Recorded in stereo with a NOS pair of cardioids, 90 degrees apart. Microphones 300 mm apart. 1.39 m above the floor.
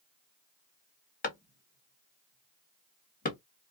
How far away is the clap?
About 1.5 m.